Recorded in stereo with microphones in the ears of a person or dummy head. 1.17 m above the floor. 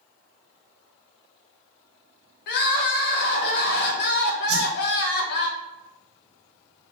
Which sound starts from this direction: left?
Crying, at 2.5 s.